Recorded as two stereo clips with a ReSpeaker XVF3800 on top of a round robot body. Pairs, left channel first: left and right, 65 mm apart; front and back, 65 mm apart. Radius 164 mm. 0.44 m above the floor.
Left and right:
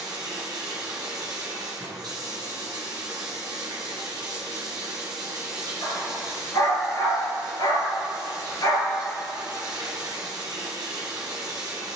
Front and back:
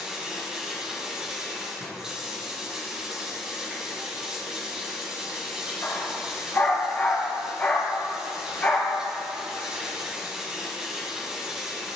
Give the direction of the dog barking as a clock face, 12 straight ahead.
10 o'clock.